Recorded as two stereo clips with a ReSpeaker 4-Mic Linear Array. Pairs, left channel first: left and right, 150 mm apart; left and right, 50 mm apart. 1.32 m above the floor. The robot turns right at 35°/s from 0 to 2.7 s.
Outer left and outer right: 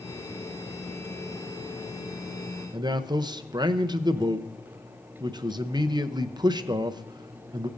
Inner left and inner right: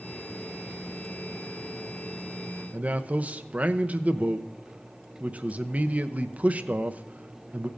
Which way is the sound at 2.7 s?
30° right (ahead or behind).